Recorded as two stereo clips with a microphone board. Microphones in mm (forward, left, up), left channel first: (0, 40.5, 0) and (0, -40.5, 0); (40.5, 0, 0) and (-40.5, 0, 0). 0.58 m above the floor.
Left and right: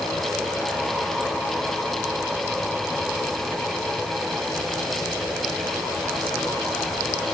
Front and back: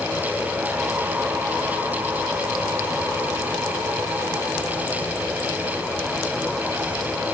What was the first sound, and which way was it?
Only background noise.